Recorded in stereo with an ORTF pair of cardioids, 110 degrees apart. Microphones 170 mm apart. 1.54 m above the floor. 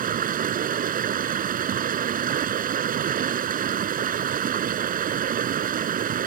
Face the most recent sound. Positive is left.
turn(degrees=-55)